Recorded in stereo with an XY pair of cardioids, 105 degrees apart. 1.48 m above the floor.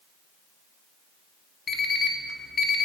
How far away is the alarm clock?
About 1.7 m.